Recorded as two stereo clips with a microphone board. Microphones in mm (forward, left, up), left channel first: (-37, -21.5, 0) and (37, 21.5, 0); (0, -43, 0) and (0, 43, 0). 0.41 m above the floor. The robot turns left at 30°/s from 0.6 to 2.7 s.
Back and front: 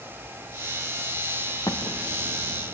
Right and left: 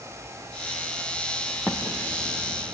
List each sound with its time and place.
1.7 s an explosion: 160° left, 2.5 m; by 2.8 s 130° left, 2.5 m